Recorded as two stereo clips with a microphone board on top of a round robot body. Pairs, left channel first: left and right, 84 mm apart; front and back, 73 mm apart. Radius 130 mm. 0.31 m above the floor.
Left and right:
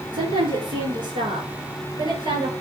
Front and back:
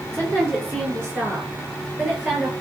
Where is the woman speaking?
120° right, 9 m; by 2.5 s 110° right, 8.5 m.